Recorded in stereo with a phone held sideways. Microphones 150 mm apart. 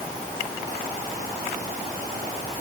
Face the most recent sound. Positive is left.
No sound to turn to.